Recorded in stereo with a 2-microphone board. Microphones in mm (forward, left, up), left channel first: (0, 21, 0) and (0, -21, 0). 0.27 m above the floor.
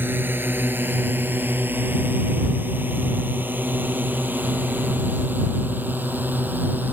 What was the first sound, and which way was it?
A drone, 55° right (ahead or behind).